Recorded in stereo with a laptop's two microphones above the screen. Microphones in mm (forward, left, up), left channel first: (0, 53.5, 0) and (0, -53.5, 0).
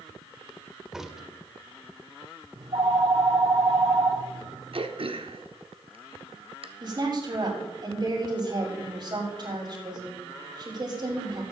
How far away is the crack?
About 0.9 m.